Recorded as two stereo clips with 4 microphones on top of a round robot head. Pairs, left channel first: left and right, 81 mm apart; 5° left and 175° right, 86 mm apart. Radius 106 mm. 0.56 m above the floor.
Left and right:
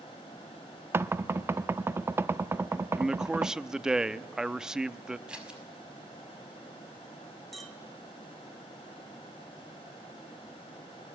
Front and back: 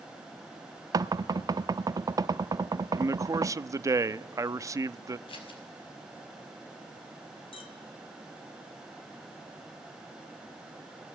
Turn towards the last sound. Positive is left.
turn(degrees=0)